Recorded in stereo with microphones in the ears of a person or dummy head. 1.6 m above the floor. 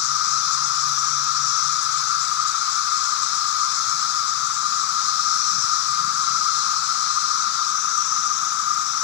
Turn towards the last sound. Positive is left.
turn(degrees=55)  # may be behind; listen again after turning